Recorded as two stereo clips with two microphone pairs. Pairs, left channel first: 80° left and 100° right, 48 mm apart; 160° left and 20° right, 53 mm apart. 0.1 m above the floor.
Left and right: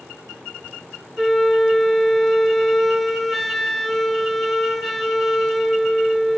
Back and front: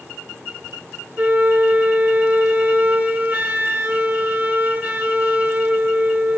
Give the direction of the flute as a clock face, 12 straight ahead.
12 o'clock.